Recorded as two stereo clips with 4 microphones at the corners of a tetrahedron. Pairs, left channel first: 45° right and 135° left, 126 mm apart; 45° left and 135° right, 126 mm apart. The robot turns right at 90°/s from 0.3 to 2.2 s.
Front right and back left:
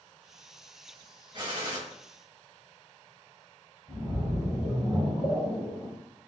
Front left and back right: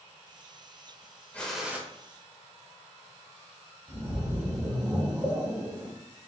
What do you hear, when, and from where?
1.3 s a gunshot: 115° left, 0.7 m; by 1.8 s 160° left, 0.7 m
3.9 s a splash: 170° left, 1.2 m